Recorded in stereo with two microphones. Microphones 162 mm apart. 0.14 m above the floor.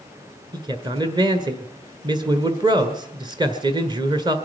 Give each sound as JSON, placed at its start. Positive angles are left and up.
{"t": 0.5, "sound": "a man speaking", "side_deg": -30, "distance_m": 1.5}